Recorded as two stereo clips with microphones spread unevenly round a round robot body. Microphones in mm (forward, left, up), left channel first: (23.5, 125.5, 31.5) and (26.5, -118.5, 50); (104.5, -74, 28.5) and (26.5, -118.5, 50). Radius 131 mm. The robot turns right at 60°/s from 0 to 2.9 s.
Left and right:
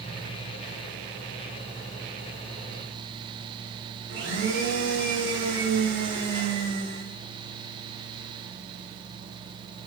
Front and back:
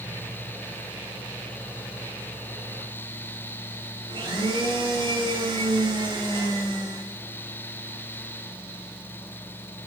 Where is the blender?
135° right, 6 m.